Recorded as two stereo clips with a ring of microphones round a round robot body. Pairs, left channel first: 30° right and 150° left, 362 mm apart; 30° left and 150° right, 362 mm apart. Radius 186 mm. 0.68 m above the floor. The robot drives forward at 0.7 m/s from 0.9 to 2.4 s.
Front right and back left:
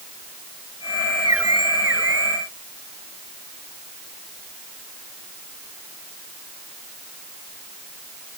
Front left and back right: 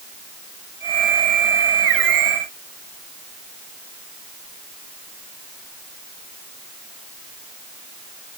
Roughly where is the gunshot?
I don't hear a gunshot.